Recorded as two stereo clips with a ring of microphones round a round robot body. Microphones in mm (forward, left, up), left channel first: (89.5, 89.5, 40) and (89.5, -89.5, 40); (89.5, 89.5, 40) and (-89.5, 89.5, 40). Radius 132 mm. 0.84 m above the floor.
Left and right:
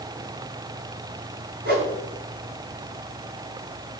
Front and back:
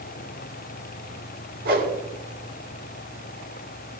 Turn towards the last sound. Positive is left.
turn(degrees=-135)